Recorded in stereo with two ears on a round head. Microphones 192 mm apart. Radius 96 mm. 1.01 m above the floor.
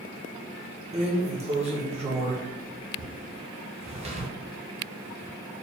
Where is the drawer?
30° right (ahead or behind), 0.7 m.